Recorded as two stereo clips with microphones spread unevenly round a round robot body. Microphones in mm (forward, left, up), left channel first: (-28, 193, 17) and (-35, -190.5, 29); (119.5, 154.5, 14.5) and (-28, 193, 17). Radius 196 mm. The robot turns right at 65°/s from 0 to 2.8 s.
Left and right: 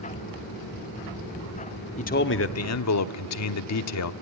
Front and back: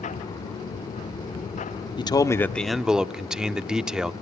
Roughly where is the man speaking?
Ahead left.